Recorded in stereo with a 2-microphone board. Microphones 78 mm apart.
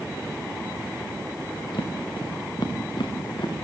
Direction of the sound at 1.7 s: 80° left.